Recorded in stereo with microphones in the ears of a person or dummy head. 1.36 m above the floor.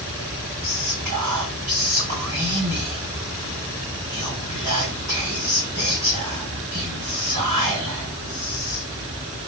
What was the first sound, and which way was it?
Whispering, 50° right (ahead or behind).